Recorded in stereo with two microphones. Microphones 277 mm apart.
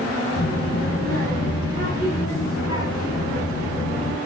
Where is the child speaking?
60° left (ahead or behind), 5 m.